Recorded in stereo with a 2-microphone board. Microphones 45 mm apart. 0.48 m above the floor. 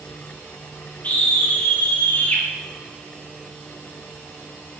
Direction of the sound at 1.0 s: 40° left (ahead or behind).